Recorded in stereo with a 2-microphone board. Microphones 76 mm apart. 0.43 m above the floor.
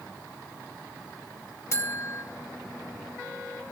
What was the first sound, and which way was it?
A buzzer, 35° left (ahead or behind).